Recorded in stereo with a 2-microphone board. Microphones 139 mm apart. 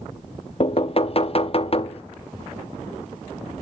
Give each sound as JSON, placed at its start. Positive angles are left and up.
{"t": 0.6, "sound": "knocking", "side_deg": 45, "distance_m": 0.6}